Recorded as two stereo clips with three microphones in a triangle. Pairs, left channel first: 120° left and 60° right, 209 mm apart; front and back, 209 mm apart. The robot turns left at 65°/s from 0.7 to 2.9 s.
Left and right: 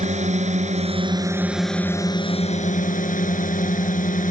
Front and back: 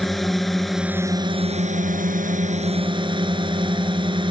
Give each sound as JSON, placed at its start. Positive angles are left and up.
{"t": 0.0, "sound": "a drone", "azimuth_deg": -90}